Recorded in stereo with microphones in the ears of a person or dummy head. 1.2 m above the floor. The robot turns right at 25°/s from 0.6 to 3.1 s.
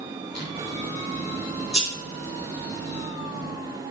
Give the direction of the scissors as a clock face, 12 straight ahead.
8 o'clock.